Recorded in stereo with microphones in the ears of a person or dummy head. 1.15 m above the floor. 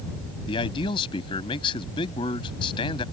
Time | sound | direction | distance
0.5 | a man speaking | 30° left (ahead or behind) | ?